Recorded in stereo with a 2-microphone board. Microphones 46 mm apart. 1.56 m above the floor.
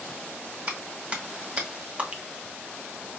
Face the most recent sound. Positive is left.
turn(degrees=-30)  # may be behind; listen again after turning